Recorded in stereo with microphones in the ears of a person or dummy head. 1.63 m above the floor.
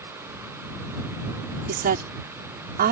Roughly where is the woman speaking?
Right.